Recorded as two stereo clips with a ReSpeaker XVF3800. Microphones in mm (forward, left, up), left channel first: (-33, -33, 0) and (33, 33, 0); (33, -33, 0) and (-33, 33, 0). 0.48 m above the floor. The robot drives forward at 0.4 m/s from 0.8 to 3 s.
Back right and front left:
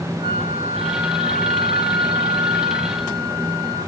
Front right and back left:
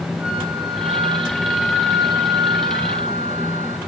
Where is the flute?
65° left, 4 m; by 3.8 s 75° left, 3.5 m.